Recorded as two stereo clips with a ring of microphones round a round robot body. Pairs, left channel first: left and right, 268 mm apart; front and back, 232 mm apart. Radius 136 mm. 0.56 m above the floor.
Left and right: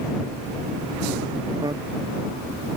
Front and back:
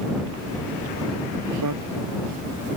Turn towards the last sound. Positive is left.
turn(degrees=-165)